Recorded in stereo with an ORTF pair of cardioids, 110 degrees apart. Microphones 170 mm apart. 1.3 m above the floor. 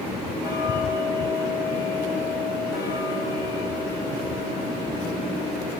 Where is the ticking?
65° left, 6.5 m.